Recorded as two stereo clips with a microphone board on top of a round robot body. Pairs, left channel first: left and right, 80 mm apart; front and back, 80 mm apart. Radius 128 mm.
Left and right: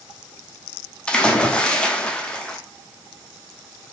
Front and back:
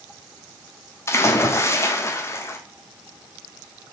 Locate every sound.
1.1 s a splash: 20° left, 0.9 m